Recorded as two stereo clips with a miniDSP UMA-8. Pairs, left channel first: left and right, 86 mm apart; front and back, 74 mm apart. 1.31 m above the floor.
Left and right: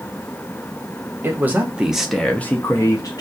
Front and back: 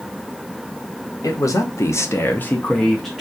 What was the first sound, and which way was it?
A man speaking, 30° right.